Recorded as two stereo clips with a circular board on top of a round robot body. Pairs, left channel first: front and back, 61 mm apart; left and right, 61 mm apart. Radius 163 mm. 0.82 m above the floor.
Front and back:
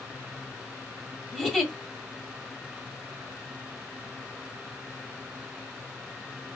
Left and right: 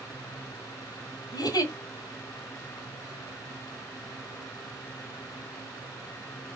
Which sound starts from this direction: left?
A giggle, at 1.3 s.